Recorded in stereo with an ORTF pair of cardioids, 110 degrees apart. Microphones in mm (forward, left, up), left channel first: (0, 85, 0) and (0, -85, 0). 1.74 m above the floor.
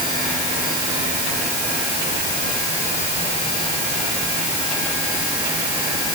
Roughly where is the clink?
No clink in this recording.